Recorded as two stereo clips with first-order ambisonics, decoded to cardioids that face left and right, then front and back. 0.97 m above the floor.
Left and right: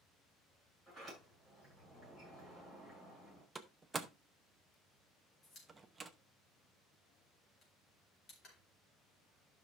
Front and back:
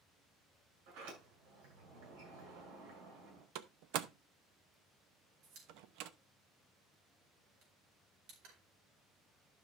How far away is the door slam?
About 0.8 m.